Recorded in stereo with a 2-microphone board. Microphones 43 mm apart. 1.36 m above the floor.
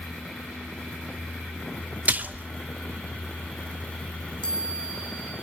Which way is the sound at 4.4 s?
20° left (ahead or behind).